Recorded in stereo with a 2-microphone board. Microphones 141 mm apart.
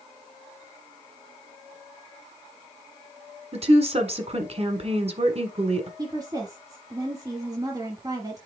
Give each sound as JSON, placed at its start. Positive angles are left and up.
{"t": 3.5, "sound": "a woman speaking", "side_deg": -50, "distance_m": 1.5}
{"t": 6.0, "sound": "a woman speaking", "side_deg": -25, "distance_m": 1.2}